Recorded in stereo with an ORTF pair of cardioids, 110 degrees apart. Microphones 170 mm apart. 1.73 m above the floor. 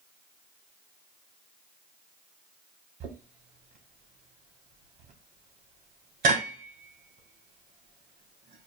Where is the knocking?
60° right, 1.8 m.